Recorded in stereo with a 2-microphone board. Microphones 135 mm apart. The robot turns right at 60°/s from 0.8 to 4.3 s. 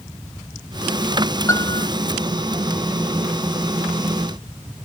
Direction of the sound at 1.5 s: 20° left (ahead or behind).